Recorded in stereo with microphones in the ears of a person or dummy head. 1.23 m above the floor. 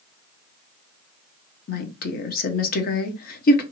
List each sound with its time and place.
1.7 s a woman speaking: 45° left (ahead or behind), 0.8 m